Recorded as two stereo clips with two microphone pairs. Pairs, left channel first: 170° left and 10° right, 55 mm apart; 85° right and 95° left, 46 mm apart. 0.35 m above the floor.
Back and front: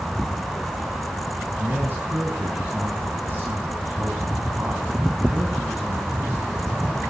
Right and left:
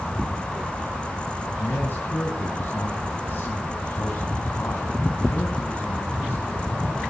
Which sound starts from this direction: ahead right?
A man speaking, at 1.6 s.